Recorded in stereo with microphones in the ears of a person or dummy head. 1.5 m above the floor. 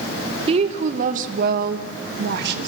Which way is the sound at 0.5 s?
30° right (ahead or behind).